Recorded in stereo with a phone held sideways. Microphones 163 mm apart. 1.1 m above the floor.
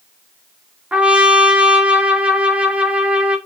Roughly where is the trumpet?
Centre.